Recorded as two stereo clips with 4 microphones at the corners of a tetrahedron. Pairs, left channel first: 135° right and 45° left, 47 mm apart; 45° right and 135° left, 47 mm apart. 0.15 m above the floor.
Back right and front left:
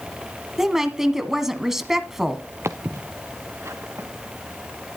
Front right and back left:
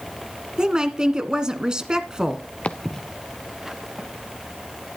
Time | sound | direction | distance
0.6 | a woman speaking | 110° left | 1.3 m
2.6 | footsteps | 15° left | 1.0 m